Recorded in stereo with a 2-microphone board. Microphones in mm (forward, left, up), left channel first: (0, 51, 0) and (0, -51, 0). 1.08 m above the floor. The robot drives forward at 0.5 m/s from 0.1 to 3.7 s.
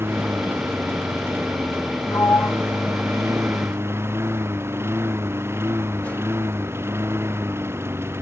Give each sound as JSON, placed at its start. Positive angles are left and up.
{"t": 0.0, "sound": "a lawn mower", "side_deg": -25}
{"t": 2.1, "sound": "a sliding door", "side_deg": 35}